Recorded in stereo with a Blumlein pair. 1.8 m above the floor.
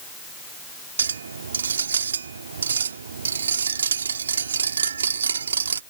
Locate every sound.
1.0 s a clink: 70° right